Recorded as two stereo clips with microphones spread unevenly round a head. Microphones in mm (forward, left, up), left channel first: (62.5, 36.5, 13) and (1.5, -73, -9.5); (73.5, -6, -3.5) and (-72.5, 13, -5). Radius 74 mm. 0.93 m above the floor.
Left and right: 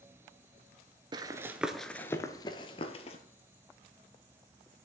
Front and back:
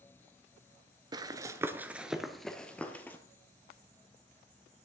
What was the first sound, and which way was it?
Running footsteps, 160° right.